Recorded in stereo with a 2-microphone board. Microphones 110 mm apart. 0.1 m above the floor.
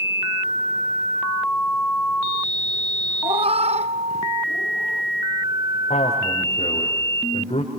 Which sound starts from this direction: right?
A cat meowing, at 3.2 s.